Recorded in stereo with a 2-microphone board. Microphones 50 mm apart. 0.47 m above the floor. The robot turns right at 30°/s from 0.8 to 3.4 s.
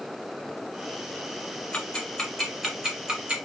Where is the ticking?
15° left (ahead or behind), 1.1 m; by 3.4 s 30° right (ahead or behind), 1.1 m.